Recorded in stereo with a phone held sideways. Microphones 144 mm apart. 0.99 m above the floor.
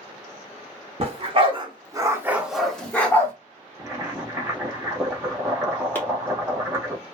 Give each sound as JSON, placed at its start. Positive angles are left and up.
{"t": 1.0, "sound": "a dog barking", "side_deg": -45, "distance_m": 0.8}
{"t": 3.8, "sound": "boiling", "side_deg": -15, "distance_m": 0.9}
{"t": 6.0, "sound": "chopping", "side_deg": 15, "distance_m": 0.9}